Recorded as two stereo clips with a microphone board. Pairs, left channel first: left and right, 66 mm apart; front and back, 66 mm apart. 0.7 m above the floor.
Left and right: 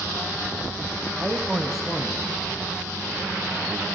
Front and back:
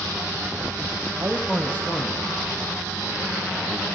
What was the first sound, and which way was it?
A man speaking, 160° right.